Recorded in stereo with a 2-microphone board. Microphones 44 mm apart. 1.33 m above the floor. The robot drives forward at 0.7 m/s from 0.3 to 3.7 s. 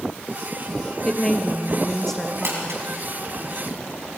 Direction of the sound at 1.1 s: 15° left (ahead or behind).